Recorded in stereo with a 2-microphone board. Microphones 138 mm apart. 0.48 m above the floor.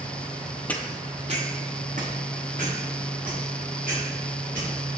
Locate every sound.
0.7 s footsteps: 10° left (ahead or behind), 0.7 m; by 4.7 s 85° right, 5.5 m